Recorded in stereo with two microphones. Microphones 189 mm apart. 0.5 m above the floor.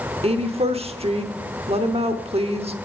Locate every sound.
0.2 s a woman speaking: 30° right (ahead or behind), 1.0 m